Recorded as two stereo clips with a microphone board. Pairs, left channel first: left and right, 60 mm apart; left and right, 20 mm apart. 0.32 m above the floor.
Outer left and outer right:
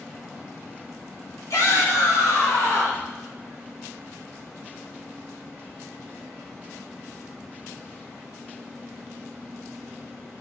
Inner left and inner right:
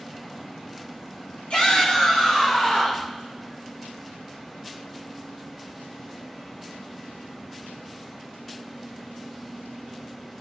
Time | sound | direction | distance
1.5 | a shout | 70° left (ahead or behind) | 2.5 m